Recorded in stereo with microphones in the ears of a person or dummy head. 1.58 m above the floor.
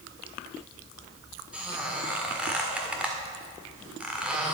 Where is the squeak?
5° right (ahead or behind), 1.6 m.